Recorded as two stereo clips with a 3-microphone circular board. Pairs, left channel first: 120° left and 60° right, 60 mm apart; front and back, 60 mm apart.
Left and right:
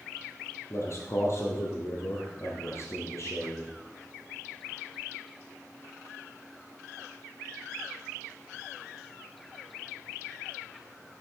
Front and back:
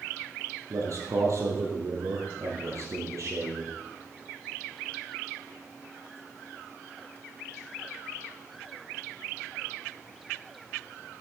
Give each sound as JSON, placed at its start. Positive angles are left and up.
{"t": 0.7, "sound": "a man speaking", "azimuth_deg": 155, "distance_m": 2.5}